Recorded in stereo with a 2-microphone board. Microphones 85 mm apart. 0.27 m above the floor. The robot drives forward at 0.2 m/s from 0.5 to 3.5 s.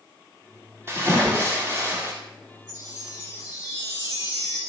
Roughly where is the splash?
Right.